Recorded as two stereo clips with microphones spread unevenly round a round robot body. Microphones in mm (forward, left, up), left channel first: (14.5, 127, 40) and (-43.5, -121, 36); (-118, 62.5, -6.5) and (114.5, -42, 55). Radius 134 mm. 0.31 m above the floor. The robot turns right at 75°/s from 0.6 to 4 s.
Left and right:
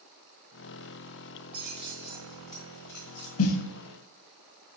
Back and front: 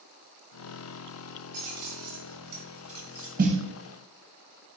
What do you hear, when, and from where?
1.5 s keys jangling: 55° right, 1.5 m; by 3.3 s 75° left, 1.5 m
3.4 s a snare drum: 35° left, 0.5 m; by 3.6 s 55° left, 0.5 m